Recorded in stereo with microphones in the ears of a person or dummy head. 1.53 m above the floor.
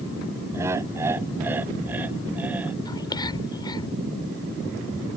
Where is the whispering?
25° left (ahead or behind).